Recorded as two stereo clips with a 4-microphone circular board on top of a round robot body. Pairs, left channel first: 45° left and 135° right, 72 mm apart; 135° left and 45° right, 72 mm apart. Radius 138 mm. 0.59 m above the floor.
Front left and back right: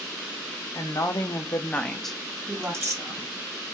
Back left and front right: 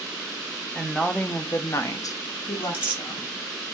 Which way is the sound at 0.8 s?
45° left.